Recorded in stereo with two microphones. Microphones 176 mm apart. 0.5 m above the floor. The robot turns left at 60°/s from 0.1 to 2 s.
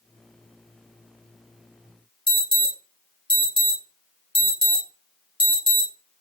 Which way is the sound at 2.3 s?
30° left (ahead or behind).